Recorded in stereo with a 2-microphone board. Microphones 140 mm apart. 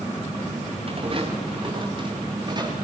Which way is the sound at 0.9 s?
45° right (ahead or behind).